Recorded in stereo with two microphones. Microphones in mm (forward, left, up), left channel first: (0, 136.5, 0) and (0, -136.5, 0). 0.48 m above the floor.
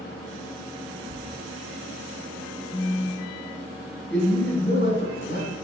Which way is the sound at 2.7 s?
15° left (ahead or behind).